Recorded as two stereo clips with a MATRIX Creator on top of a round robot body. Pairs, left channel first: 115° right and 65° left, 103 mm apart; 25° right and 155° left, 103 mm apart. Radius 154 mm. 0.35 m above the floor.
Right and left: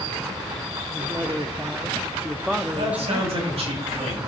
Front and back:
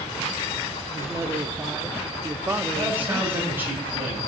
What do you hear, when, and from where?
0.9 s a man speaking: 125° left, 0.9 m
2.7 s a man speaking: 85° left, 3.5 m